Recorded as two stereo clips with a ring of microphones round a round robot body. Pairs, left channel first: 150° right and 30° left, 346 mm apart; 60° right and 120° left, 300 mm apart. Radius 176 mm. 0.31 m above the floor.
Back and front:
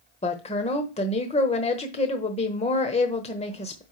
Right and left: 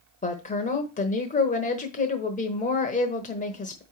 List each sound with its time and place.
0.2 s a woman speaking: 95° right, 1.0 m